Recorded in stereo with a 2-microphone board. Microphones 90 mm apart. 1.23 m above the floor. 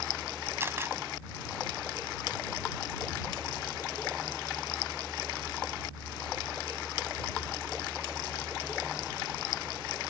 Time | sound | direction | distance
0.6 | a camera shutter | 25° right (ahead or behind) | ?